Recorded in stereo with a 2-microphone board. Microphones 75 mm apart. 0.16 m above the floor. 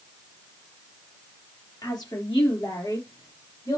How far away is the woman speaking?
About 4 m.